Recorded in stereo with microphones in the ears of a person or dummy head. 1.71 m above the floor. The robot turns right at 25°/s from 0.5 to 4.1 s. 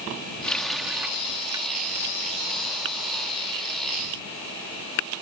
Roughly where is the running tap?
Centre.